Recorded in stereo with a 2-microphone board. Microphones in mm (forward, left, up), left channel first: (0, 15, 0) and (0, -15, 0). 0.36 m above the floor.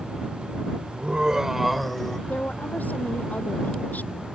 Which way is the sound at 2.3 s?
75° left (ahead or behind).